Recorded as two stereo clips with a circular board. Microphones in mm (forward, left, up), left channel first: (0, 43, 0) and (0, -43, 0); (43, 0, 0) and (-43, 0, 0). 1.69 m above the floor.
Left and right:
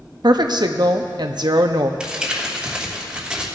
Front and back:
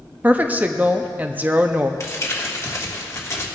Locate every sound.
0.2 s a woman speaking: 110° right, 0.8 m
2.0 s crumpling: 15° right, 1.5 m